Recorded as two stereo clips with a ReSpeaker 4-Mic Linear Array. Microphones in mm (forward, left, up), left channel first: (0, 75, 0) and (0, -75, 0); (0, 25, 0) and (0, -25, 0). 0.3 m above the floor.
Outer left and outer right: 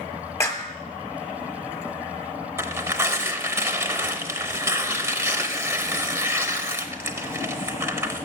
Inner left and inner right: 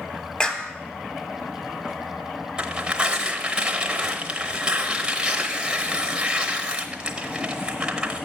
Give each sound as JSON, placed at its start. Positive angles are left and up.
{"t": 0.4, "sound": "a clap", "side_deg": 20, "distance_m": 1.2}
{"t": 2.6, "sound": "tearing paper", "side_deg": -15, "distance_m": 0.8}